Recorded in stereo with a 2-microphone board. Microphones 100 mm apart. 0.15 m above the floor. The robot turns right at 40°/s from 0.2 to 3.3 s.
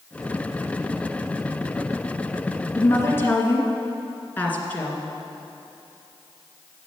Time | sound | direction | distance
2.8 | a woman speaking | 30° left (ahead or behind) | 1.9 m